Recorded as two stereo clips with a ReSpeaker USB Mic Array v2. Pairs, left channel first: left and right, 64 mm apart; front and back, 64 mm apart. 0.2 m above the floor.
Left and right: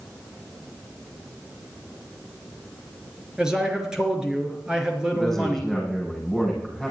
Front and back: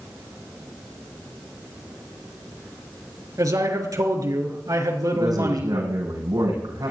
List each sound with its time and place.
3.4 s a man speaking: 170° right, 4 m
5.1 s a man speaking: 175° left, 9 m